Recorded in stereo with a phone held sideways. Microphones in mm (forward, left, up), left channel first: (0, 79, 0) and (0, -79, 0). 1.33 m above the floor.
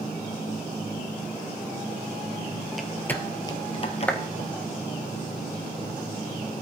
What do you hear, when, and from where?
2.7 s footsteps: centre (ahead or behind), 1.5 m; by 4.5 s 50° left (ahead or behind), 2.0 m
4.1 s a clap: 10° left (ahead or behind), 1.3 m